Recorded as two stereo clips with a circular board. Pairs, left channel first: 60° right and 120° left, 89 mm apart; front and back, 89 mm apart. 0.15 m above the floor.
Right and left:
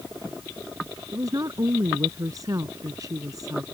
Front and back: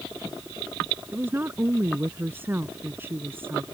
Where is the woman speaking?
130° left.